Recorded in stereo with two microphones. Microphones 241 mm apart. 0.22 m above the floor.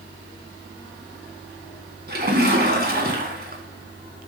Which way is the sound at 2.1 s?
40° right (ahead or behind).